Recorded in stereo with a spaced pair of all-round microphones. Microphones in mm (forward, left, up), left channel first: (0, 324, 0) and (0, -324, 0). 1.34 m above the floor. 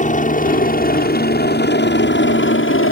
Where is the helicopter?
10° left (ahead or behind); by 2.9 s 20° left (ahead or behind).